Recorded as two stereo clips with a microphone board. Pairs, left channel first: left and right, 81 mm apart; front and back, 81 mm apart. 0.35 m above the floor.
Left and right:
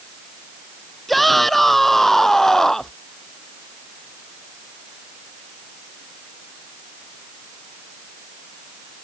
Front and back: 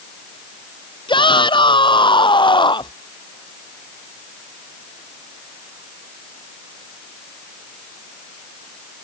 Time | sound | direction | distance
1.1 | a shout | straight ahead | ?